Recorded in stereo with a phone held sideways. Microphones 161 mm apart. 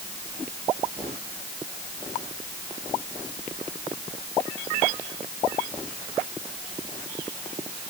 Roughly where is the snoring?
No snoring in this recording.